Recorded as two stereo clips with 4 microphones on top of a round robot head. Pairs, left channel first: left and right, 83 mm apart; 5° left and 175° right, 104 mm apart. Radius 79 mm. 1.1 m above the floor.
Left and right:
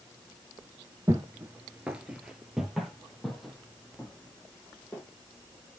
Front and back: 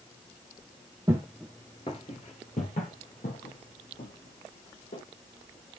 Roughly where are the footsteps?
Behind right.